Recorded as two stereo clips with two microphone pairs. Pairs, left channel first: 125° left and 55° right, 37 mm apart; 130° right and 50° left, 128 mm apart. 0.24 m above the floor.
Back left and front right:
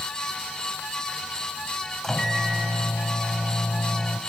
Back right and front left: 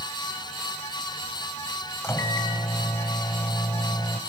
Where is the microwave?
170° right, 1.2 m.